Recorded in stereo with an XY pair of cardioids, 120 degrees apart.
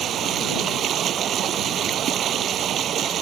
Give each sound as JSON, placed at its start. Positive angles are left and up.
{"t": 0.0, "sound": "running water", "azimuth_deg": -55}